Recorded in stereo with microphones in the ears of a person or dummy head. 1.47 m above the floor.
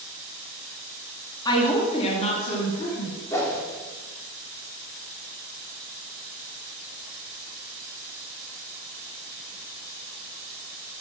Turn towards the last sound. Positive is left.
turn(degrees=10)  # may be behind; listen again after turning